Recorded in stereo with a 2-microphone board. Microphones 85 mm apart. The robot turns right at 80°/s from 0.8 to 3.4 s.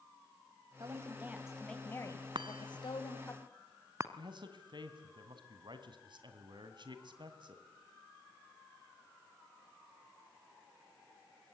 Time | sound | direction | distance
0.8 | a woman speaking | 60° right | 2.5 m
2.4 | a chime | 65° right (ahead or behind) | 1.2 m
4.2 | a man speaking | 60° right (ahead or behind) | 2.5 m